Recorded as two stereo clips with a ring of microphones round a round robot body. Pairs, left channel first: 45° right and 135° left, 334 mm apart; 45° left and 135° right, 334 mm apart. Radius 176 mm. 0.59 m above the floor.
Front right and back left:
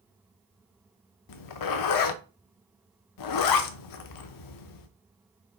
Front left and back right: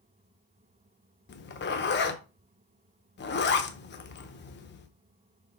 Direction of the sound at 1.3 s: 15° right.